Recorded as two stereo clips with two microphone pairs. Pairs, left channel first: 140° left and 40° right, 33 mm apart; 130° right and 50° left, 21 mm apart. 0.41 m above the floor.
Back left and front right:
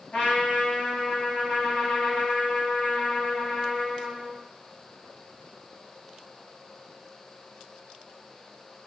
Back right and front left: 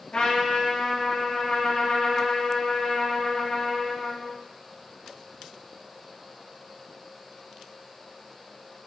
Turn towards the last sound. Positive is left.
turn(degrees=-170)